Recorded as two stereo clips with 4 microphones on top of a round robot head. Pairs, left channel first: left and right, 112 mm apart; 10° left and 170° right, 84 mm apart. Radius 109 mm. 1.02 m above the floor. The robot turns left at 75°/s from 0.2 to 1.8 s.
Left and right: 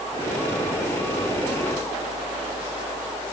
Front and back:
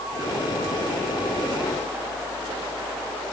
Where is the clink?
No clink in this recording.